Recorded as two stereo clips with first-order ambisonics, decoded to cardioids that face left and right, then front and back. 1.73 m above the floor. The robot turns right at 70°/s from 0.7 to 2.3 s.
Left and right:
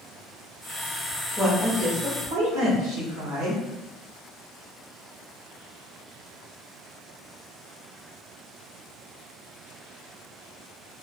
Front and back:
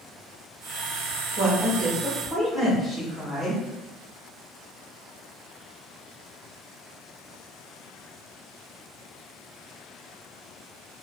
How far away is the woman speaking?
About 0.9 m.